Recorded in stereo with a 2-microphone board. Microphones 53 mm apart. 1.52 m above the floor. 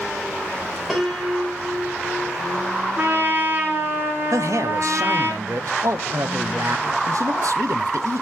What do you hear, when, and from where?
0.9 s a piano: 5° right (ahead or behind), 2.5 m
3.0 s a trumpet: 40° right (ahead or behind), 3 m
4.3 s a man speaking: 75° right (ahead or behind), 0.9 m